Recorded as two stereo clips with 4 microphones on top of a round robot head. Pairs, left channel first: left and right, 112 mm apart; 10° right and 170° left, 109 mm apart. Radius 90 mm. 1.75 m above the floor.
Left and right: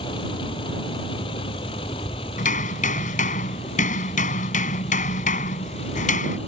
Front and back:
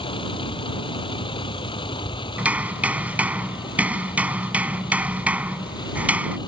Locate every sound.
0.0 s a vehicle: 35° left; by 6.5 s 40° left
2.4 s hammering: 95° left